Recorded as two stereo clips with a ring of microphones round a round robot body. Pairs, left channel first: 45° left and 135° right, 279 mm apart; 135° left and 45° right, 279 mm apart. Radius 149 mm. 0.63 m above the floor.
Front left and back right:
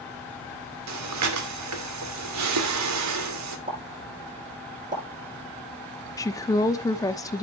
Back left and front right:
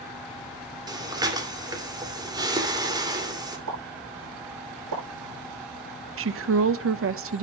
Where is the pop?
70° right, 9.5 m.